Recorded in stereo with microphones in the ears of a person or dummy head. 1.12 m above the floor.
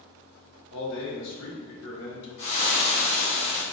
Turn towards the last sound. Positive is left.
turn(degrees=60)  # may be behind; listen again after turning